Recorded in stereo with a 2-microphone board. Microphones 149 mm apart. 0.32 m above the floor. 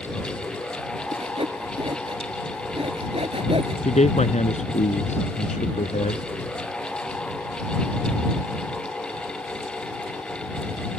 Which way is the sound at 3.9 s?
50° left (ahead or behind).